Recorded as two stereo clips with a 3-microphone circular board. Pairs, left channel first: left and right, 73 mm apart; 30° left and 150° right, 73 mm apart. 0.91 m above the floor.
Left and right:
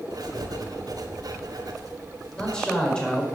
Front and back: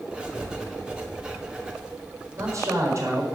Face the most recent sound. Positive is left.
turn(degrees=165)